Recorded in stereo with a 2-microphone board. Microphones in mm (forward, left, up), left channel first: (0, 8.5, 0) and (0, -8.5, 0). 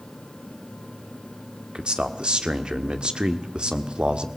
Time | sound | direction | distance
1.8 | a man speaking | 65° right (ahead or behind) | 1.5 m